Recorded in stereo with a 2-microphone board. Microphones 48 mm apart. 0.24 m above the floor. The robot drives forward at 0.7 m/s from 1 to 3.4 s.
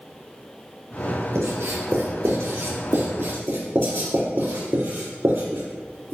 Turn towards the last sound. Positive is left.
turn(degrees=-60)  # may be behind; listen again after turning